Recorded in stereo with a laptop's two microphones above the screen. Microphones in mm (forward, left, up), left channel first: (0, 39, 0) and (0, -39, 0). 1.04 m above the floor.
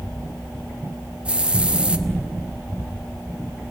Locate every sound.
1.2 s a hiss: 15° right (ahead or behind), 1.1 m